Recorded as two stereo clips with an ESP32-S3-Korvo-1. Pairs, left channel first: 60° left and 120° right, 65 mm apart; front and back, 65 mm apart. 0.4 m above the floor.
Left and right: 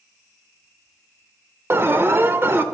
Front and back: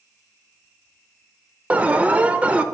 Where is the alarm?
125° right, 0.5 m.